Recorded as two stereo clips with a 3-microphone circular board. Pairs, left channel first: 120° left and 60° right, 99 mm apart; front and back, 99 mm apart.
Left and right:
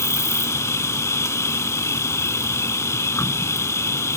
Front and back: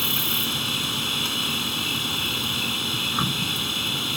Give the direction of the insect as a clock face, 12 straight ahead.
9 o'clock.